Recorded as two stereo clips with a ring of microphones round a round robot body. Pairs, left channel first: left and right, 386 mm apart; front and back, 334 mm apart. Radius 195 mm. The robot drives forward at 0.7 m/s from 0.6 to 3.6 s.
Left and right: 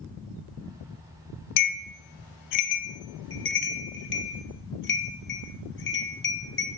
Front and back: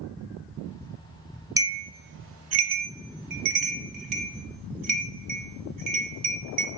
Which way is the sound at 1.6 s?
100° left.